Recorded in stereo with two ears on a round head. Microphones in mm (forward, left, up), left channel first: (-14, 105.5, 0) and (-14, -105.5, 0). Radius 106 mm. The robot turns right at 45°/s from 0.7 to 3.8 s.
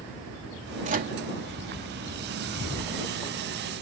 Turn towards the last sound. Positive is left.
turn(degrees=45)  # may be behind; listen again after turning